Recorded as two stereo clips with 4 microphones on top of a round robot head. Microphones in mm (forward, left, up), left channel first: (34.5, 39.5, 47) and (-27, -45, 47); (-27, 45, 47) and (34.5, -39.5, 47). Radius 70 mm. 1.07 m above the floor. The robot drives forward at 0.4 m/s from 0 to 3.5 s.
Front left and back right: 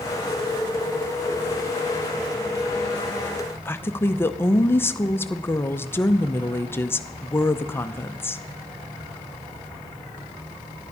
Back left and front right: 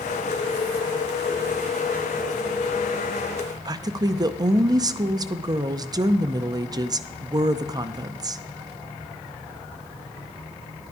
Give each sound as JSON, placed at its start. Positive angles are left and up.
{"t": 3.6, "sound": "a woman speaking", "azimuth_deg": -10, "distance_m": 0.6}